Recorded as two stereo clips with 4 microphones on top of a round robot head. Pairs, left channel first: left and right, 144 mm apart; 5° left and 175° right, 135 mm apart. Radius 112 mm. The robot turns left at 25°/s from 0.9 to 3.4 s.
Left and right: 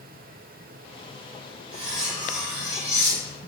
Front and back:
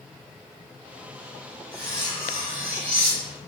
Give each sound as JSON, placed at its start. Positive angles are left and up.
{"t": 1.7, "sound": "cutlery clinking", "azimuth_deg": -145, "distance_m": 1.1}